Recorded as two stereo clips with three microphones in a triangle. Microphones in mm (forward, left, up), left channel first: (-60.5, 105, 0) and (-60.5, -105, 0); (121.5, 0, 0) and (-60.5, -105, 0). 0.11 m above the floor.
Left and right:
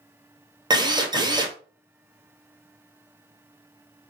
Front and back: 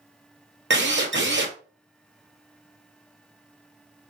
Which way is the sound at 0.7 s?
160° right.